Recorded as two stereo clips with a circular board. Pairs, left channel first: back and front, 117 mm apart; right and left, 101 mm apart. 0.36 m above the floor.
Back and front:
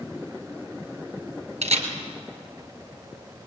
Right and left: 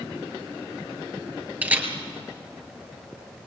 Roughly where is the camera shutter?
Ahead.